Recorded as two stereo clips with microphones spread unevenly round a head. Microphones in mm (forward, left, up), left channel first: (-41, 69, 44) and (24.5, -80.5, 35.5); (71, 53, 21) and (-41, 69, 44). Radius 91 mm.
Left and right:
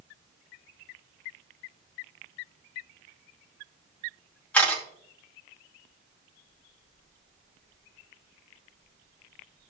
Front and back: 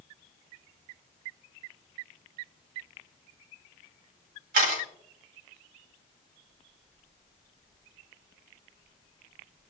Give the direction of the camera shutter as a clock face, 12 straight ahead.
5 o'clock.